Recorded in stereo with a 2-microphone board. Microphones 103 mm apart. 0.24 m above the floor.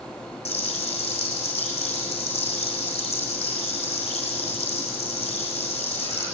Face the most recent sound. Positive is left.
turn(degrees=75)  # may be behind; listen again after turning